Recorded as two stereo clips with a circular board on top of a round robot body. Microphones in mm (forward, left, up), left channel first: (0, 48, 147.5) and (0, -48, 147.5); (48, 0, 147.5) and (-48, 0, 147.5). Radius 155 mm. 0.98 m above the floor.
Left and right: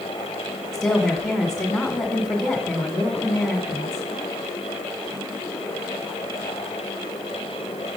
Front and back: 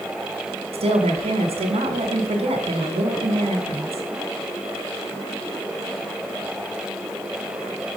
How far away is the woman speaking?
About 1.3 m.